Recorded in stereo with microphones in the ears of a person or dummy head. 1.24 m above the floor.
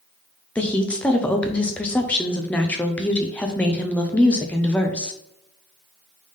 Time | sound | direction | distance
0.6 | a woman speaking | 10° left (ahead or behind) | 0.5 m